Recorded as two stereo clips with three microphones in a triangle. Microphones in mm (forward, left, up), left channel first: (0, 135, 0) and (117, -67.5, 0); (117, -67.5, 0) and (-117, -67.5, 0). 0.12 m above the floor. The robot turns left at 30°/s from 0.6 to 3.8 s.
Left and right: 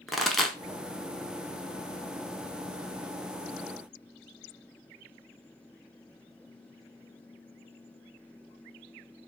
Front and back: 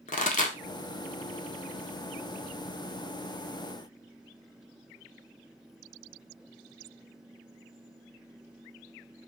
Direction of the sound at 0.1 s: 30° left.